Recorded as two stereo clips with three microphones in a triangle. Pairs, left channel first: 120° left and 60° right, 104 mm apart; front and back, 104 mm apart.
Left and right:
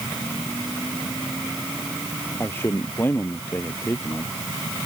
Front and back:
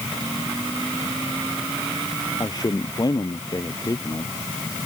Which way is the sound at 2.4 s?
50° left.